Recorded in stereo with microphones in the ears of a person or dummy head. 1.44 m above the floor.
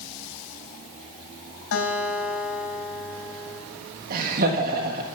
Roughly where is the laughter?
Right.